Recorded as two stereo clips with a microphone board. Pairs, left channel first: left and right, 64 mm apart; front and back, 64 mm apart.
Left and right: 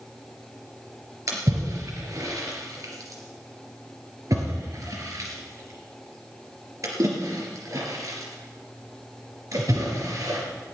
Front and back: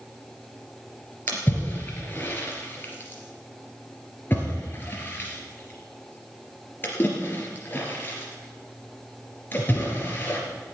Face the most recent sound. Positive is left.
turn(degrees=-60)